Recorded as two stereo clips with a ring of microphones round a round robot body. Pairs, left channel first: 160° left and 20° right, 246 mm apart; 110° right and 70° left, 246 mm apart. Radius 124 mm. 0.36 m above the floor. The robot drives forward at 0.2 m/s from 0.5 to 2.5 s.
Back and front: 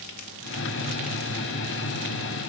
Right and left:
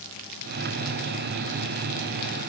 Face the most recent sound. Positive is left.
No sound to turn to.